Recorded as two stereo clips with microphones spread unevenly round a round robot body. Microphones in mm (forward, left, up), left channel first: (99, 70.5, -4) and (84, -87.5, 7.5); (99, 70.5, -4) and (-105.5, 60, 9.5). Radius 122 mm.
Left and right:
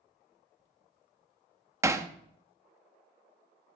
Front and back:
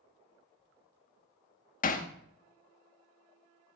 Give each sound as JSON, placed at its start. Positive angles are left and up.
{"t": 1.8, "sound": "hammering", "azimuth_deg": -25, "distance_m": 0.8}